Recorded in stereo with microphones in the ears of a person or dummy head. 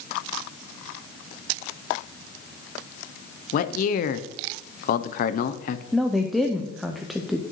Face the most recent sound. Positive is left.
turn(degrees=-5)  # may be behind; listen again after turning